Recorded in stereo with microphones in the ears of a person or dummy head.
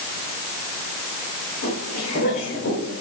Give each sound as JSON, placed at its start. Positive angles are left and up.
{"t": 1.6, "sound": "footsteps", "side_deg": 70, "distance_m": 5.0}